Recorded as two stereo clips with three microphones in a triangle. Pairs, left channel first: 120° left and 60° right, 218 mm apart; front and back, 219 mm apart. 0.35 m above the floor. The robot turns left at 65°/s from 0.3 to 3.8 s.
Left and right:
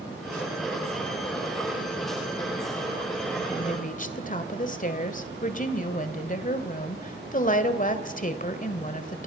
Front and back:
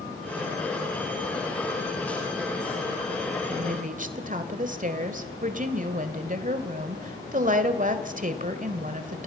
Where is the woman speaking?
170° left, 1.6 m; by 9.3 s 150° left, 1.6 m.